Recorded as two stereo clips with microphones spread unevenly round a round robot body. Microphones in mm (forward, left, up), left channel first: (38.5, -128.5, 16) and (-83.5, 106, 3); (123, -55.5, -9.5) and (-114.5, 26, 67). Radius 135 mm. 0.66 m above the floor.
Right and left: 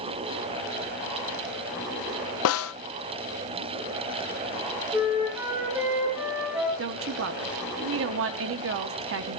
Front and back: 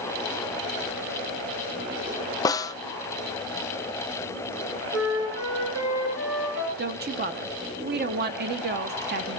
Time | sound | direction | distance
2.5 | a snare drum | 75° right | 0.6 m
4.9 | a flute | 160° right | 4.5 m
6.8 | a woman speaking | 100° left | 1.0 m